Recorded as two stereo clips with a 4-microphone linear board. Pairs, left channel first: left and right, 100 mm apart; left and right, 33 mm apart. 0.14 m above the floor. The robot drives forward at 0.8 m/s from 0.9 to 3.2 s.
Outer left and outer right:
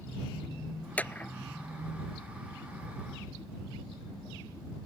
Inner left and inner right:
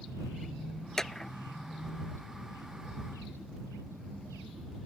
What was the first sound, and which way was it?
A clap, 15° left (ahead or behind).